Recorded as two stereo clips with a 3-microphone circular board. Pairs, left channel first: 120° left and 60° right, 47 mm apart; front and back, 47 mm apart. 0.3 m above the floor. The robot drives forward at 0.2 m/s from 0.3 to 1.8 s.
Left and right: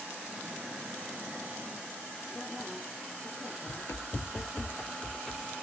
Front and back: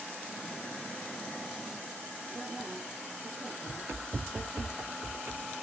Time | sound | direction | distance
2.3 | a woman speaking | 155° right | 9 m
3.7 | running footsteps | 125° left | 1.0 m